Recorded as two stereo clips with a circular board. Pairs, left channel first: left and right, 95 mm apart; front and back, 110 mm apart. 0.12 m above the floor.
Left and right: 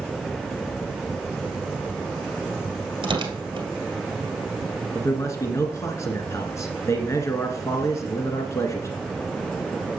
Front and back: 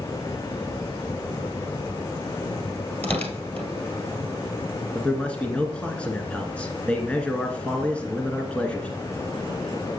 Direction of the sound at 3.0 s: 70° right.